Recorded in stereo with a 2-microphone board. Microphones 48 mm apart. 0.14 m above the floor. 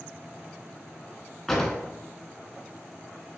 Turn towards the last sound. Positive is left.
turn(degrees=5)  # may be behind; listen again after turning